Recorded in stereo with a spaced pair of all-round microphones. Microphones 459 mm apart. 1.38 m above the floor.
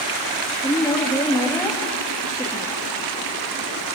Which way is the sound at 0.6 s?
10° left (ahead or behind).